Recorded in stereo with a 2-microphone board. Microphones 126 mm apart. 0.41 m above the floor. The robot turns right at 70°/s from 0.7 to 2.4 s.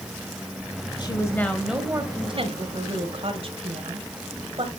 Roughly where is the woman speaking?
Behind left.